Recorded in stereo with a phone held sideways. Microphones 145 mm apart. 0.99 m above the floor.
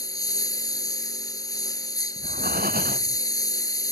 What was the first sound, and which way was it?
A lawn mower, 25° left (ahead or behind).